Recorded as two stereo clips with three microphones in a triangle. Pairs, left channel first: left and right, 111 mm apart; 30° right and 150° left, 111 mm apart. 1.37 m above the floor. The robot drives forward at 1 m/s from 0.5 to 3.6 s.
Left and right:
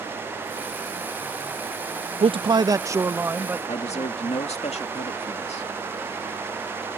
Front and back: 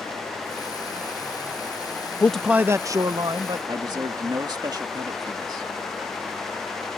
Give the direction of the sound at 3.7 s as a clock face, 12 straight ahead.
9 o'clock.